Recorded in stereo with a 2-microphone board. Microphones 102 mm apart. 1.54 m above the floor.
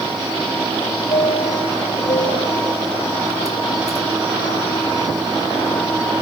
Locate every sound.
1.1 s a chime: 80° left